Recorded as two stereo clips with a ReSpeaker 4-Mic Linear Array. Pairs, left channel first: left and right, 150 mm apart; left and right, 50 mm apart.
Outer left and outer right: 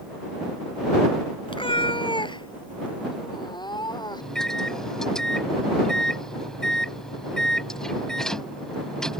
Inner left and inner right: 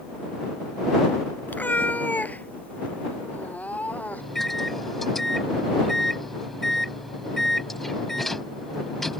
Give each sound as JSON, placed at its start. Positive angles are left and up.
{"t": 1.5, "sound": "a cat meowing", "side_deg": 35}
{"t": 4.2, "sound": "a microwave", "side_deg": 5}